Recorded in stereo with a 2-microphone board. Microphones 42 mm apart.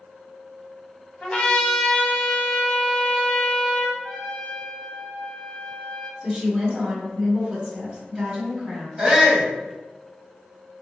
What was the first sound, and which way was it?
A trumpet, 25° left (ahead or behind).